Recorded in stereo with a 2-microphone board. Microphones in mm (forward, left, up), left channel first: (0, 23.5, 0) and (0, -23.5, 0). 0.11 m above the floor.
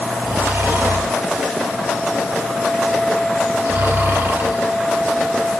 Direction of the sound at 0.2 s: 60° right (ahead or behind).